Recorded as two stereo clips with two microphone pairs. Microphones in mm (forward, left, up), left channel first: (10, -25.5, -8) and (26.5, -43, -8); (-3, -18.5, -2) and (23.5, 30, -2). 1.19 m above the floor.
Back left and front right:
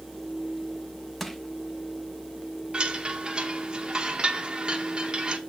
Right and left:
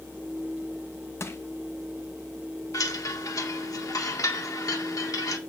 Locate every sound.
1.2 s crushing: 145° right, 0.9 m
2.7 s a chime: 105° right, 1.2 m